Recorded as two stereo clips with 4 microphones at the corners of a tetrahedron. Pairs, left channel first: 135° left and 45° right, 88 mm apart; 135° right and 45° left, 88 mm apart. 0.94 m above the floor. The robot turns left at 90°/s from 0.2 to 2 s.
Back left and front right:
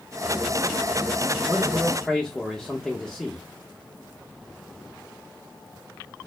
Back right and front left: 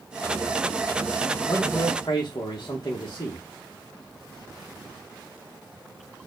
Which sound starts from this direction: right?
A man speaking, at 1.5 s.